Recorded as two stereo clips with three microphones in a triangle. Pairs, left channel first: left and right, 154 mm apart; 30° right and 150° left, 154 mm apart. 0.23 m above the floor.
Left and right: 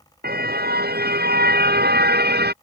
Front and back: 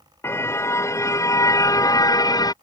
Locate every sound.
0.2 s a car horn: 105° right; by 2.5 s 95° right